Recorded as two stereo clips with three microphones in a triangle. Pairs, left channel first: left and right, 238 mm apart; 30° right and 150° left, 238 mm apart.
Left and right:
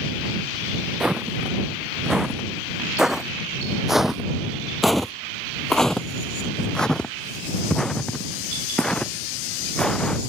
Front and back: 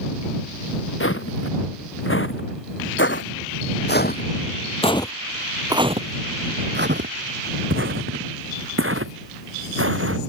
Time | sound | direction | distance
1.0 | footsteps | straight ahead | ?